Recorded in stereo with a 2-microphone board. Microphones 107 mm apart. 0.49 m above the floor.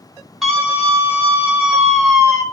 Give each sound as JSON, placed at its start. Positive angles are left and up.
{"t": 0.4, "sound": "a scream", "side_deg": 0, "distance_m": 4.0}